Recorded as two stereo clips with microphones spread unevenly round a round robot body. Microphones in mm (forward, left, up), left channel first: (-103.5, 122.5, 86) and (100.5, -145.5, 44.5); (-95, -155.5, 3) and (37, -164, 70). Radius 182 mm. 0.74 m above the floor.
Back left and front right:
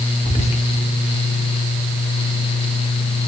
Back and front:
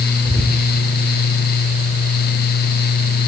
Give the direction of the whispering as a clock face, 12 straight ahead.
10 o'clock.